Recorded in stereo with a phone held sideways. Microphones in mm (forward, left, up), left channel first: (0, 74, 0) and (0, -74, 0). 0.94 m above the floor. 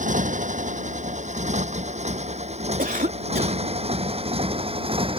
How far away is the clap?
No clap in this recording.